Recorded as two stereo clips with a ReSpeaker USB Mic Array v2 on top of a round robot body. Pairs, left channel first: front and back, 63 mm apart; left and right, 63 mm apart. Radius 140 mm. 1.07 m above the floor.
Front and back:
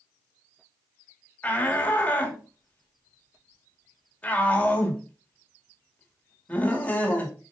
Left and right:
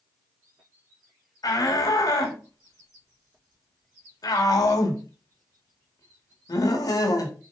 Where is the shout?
70° left, 2.5 m.